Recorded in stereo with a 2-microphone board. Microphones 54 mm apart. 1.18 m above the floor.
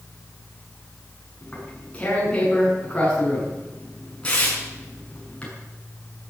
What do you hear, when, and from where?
1.4 s tearing paper: 20° left (ahead or behind), 7 m